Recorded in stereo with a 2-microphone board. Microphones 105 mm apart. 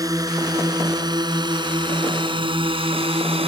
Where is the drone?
30° right (ahead or behind); by 3.5 s 55° right (ahead or behind).